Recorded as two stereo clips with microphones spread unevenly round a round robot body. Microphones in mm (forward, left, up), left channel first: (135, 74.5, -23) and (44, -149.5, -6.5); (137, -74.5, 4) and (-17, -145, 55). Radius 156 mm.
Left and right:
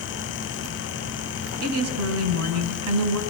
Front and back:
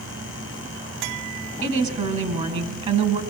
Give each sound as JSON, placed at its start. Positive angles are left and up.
{"t": 1.6, "sound": "a woman speaking", "azimuth_deg": -100, "distance_m": 5.0}